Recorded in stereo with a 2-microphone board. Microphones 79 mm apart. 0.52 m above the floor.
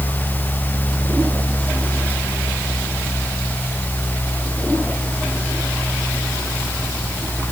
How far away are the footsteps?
I don't hear footsteps.